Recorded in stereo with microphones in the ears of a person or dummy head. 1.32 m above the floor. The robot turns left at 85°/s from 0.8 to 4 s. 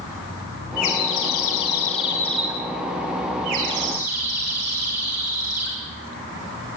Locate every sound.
0.8 s a bird: 135° left, 8.5 m; by 5.8 s 140° right, 8.5 m